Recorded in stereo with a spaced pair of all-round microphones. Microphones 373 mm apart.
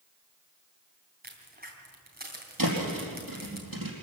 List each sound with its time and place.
1.2 s a crack: 25° right (ahead or behind), 3.5 m
2.6 s a thud: 65° right (ahead or behind), 4.5 m